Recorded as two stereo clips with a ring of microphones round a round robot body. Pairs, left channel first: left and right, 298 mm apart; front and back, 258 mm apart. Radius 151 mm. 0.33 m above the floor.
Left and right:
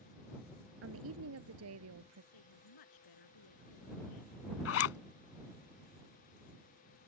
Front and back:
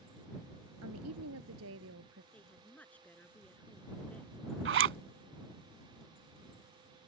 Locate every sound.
0.8 s a woman speaking: 135° right; by 2.2 s 130° right
2.3 s a woman speaking: 85° left
4.7 s a zipper: 135° left